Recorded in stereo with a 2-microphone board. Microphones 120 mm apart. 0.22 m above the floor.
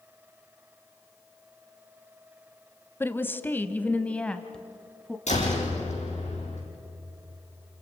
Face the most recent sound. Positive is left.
turn(degrees=75)  # may be behind; listen again after turning